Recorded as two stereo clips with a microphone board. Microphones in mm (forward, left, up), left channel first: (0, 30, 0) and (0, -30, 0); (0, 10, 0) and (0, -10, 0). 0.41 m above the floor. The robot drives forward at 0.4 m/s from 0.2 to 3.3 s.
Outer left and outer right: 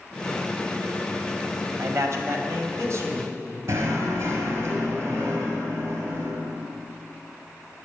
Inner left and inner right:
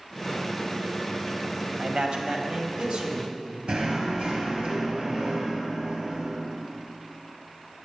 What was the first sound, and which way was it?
A man speaking, 55° right (ahead or behind).